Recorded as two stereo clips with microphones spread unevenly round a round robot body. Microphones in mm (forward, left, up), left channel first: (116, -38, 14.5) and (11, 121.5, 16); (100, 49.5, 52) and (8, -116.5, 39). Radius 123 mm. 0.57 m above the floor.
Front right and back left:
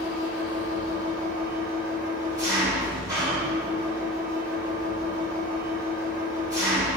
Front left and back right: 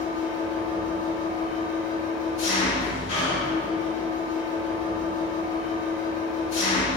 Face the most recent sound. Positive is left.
turn(degrees=50)